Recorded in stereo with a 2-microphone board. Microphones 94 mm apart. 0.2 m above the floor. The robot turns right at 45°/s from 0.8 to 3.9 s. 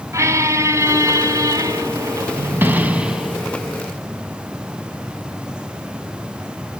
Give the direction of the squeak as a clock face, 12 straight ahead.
4 o'clock.